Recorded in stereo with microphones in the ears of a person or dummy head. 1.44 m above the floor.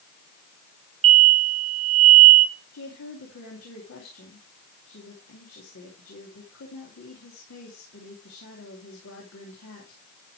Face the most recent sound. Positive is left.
turn(degrees=90)